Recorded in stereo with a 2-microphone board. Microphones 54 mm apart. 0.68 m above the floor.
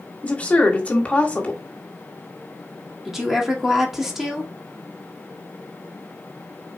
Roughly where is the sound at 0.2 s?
Left.